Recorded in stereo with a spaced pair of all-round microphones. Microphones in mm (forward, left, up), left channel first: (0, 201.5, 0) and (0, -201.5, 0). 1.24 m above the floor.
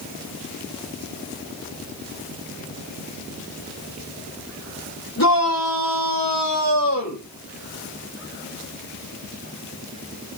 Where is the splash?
I don't hear a splash.